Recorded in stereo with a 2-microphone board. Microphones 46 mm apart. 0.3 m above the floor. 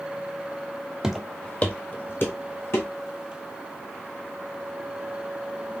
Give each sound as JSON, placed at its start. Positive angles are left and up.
{"t": 1.0, "sound": "footsteps", "side_deg": -10, "distance_m": 0.6}